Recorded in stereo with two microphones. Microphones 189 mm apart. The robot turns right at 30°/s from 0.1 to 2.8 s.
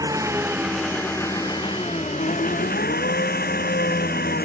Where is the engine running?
20° right; by 4.4 s 60° left.